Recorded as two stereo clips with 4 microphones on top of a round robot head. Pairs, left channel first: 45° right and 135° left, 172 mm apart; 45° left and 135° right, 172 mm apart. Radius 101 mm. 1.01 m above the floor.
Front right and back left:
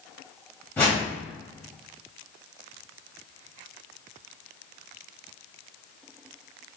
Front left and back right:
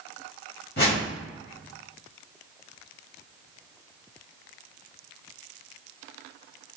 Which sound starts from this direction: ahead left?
A whoosh, at 0.8 s.